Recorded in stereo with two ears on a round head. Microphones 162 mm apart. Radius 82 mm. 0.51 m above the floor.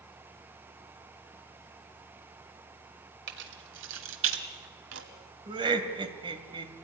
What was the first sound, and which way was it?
Keys jangling, 60° right (ahead or behind).